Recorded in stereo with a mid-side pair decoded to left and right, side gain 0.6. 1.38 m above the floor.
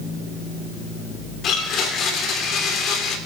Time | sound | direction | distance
1.4 | a blender | 50° left | 3.5 m